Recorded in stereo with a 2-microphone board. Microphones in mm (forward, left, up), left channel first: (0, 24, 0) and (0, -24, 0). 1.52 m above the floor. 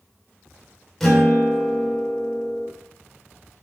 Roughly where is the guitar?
Centre.